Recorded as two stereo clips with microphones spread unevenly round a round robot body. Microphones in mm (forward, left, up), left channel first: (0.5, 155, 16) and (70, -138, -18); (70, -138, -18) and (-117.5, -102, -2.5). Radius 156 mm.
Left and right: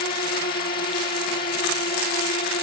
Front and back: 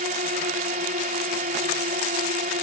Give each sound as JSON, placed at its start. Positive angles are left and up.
{"t": 0.0, "sound": "a drone", "azimuth_deg": 160}